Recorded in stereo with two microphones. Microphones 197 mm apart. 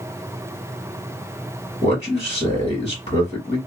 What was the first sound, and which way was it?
A man speaking, 35° left (ahead or behind).